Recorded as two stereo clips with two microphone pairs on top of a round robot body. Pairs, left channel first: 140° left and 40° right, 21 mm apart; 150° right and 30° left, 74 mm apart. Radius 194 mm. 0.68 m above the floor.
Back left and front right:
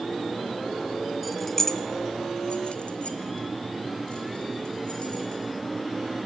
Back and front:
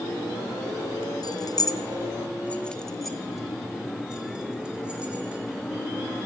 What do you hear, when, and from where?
1.2 s keys jangling: 135° right, 0.8 m; by 5.4 s 105° left, 2.5 m